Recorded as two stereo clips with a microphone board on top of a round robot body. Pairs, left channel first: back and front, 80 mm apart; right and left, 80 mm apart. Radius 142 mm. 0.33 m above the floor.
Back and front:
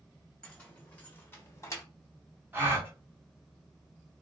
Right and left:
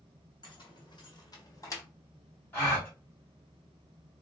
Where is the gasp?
45° right, 1.6 m.